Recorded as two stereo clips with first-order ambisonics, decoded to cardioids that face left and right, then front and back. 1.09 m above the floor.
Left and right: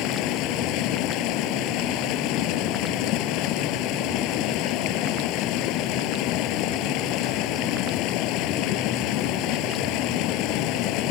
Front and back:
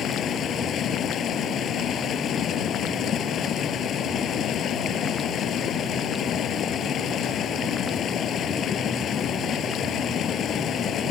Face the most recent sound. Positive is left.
turn(degrees=60)